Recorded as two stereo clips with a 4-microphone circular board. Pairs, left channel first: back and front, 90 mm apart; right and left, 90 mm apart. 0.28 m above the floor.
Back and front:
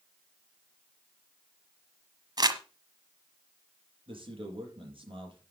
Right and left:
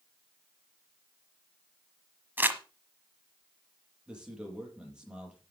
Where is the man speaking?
10° left, 7.5 m.